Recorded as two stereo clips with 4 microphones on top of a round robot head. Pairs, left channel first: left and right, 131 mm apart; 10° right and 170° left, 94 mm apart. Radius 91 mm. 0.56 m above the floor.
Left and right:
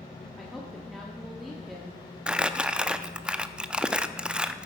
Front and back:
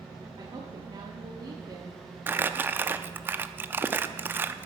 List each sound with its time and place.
0.4 s a woman speaking: straight behind, 1.4 m
2.3 s crumpling: 160° right, 0.6 m